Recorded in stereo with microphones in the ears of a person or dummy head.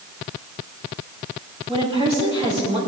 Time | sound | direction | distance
1.7 | a woman speaking | 30° right (ahead or behind) | 5 m